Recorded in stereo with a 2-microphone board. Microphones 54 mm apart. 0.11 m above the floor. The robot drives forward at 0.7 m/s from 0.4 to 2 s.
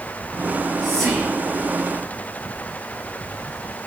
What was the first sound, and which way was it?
Whispering, 5° left (ahead or behind).